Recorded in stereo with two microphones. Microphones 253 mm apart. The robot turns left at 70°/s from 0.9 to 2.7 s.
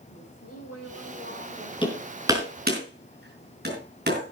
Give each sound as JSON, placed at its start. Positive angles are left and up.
{"t": 0.1, "sound": "a woman speaking", "azimuth_deg": 70, "distance_m": 4.5}
{"t": 1.8, "sound": "hammering", "side_deg": 20, "distance_m": 5.0}